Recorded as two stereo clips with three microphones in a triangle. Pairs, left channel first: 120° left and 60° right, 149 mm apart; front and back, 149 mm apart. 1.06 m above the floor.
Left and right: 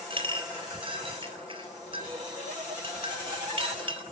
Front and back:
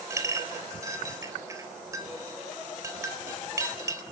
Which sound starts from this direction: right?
A clink, at 0.1 s.